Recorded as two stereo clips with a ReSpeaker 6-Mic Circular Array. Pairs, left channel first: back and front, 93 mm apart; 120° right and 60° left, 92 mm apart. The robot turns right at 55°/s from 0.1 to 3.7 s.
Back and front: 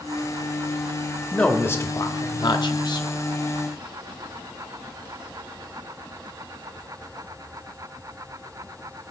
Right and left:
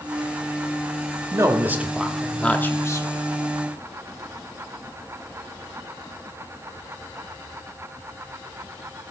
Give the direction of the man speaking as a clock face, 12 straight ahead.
9 o'clock.